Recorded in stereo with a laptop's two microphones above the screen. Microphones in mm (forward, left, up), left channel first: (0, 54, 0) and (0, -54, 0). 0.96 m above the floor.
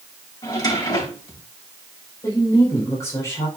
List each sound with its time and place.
0.4 s a drawer: 35° left (ahead or behind), 3.5 m
2.2 s a woman speaking: 25° left (ahead or behind), 4.5 m